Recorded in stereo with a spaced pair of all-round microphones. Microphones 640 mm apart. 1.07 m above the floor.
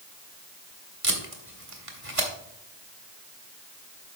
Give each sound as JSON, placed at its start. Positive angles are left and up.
{"t": 1.0, "sound": "tape being pulled", "side_deg": -55, "distance_m": 1.6}